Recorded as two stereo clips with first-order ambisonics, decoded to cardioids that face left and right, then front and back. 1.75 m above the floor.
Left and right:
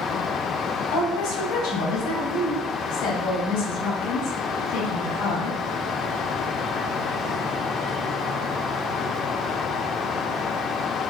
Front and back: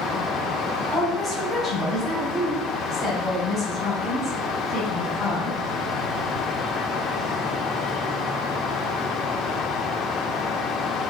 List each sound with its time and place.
0.9 s a woman speaking: 90° left, 3.5 m